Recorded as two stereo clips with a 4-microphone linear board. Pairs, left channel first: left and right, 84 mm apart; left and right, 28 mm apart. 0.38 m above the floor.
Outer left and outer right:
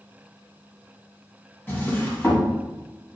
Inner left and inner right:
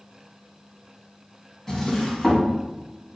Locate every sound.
1.7 s a drawer: 25° left (ahead or behind), 1.1 m